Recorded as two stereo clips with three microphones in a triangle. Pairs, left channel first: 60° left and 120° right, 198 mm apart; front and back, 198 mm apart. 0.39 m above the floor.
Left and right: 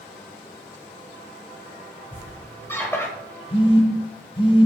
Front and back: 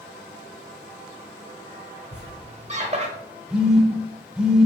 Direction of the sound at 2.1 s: 135° left.